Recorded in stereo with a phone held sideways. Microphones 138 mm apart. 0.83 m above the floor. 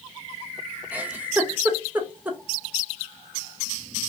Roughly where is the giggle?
Centre.